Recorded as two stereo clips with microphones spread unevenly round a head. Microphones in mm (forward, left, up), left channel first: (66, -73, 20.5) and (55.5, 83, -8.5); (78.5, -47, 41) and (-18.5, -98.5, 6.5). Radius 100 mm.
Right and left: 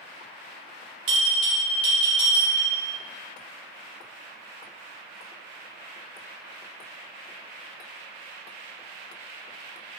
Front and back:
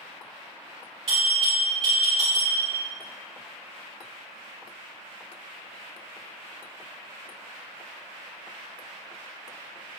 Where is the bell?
145° left, 1.3 m.